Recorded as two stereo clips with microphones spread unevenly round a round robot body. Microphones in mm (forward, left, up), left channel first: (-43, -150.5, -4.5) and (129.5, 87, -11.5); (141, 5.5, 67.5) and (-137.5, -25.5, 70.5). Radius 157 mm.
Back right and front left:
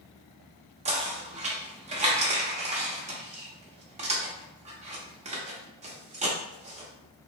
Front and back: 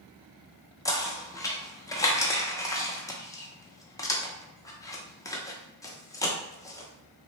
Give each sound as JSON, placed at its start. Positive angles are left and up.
{"t": 0.8, "sound": "knocking", "azimuth_deg": 65, "distance_m": 0.5}